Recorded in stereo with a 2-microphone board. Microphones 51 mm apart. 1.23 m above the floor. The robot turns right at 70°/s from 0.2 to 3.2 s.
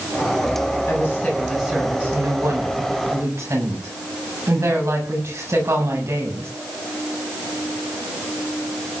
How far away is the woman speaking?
About 7.5 m.